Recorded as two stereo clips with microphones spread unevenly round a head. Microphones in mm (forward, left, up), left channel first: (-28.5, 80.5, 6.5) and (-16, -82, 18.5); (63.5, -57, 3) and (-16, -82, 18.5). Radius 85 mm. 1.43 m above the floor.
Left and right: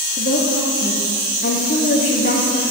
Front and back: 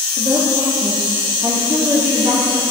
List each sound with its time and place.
0.2 s a woman speaking: 130° left, 2 m